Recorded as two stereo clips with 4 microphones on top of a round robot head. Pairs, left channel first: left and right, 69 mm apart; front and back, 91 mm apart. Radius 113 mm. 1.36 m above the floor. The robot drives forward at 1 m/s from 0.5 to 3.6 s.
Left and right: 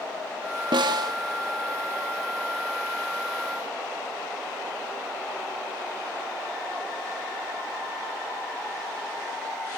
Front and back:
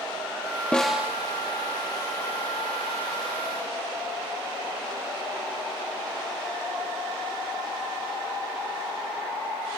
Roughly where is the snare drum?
Right.